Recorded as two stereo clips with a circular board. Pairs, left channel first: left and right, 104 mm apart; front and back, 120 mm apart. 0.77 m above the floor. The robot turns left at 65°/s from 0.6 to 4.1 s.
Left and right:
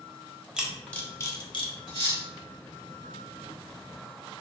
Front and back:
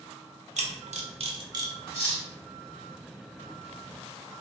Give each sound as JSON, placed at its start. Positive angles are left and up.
{"t": 0.6, "sound": "a camera shutter", "azimuth_deg": -170, "distance_m": 0.5}
{"t": 1.9, "sound": "cutlery clinking", "azimuth_deg": 45, "distance_m": 1.8}